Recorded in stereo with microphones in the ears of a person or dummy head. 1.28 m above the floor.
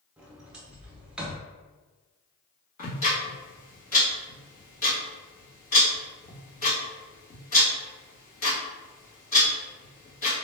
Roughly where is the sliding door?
Centre.